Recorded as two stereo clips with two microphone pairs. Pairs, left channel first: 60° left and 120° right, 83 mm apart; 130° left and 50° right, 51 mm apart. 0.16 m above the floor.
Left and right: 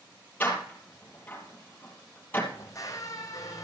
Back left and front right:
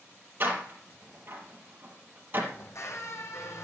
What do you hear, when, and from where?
0.4 s a door slam: 5° right, 3 m
2.5 s a squeak: 110° left, 1.8 m